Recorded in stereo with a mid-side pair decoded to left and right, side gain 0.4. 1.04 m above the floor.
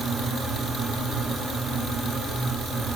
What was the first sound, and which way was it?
A fan, straight ahead.